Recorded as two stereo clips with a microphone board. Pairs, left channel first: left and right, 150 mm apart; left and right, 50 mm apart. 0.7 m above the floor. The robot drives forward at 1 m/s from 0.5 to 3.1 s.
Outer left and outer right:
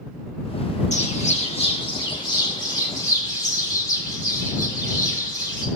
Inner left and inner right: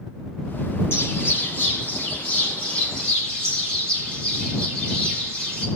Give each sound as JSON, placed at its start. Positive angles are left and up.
{"t": 0.9, "sound": "a bird", "side_deg": 50, "distance_m": 1.5}